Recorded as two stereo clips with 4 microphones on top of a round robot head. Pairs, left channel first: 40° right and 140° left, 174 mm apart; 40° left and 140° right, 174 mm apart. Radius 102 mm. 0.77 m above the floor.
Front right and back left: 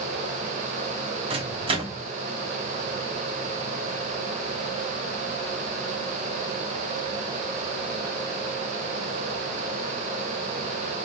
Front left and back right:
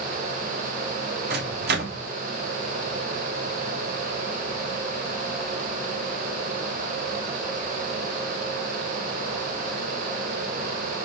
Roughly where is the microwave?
Behind.